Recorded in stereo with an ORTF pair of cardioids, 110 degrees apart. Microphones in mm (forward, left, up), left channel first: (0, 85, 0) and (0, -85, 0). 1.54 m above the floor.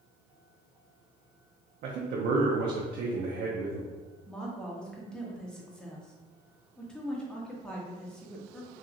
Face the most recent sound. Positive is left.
turn(degrees=5)